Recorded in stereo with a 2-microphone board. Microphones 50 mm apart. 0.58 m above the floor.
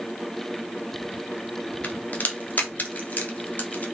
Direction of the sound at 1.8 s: 35° left (ahead or behind).